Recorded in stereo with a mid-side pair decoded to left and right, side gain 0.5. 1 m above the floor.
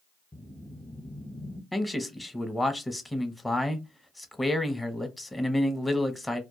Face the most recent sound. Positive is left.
turn(degrees=10)